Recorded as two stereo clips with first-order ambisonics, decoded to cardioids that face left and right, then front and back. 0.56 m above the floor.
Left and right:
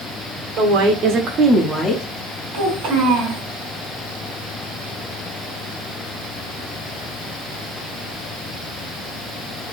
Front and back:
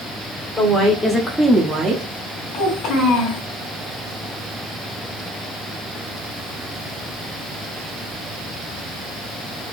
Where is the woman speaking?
65° right, 1.5 m; by 2.0 s 145° left, 0.8 m.